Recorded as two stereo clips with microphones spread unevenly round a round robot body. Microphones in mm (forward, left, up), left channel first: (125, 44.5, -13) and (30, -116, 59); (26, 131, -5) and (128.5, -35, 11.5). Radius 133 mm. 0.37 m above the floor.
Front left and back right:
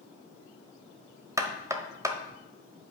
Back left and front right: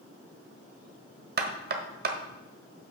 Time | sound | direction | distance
1.4 | knocking | 35° right | 1.3 m